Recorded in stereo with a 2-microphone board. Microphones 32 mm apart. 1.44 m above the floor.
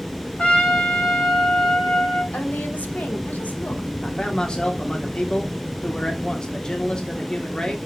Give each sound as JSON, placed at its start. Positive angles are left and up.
{"t": 0.4, "sound": "a trumpet", "side_deg": 45, "distance_m": 2.5}
{"t": 2.3, "sound": "a woman speaking", "side_deg": 75, "distance_m": 1.8}
{"t": 4.0, "sound": "a man speaking", "side_deg": 30, "distance_m": 1.4}